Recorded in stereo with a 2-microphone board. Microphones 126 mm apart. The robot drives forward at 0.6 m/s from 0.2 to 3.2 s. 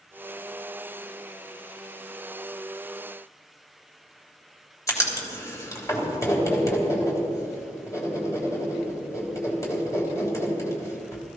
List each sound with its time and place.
4.9 s writing: 25° left (ahead or behind), 3 m